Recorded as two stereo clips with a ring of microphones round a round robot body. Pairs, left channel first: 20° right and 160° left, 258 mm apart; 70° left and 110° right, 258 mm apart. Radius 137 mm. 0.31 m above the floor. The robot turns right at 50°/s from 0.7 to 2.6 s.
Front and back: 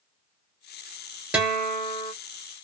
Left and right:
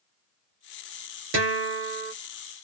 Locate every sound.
1.3 s a guitar: 120° right, 1.4 m; by 2.1 s 80° right, 1.4 m